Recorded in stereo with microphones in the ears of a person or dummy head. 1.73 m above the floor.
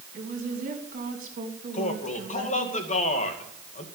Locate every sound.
0.1 s a woman speaking: 45° right (ahead or behind), 3 m
1.7 s a man speaking: 35° left (ahead or behind), 2 m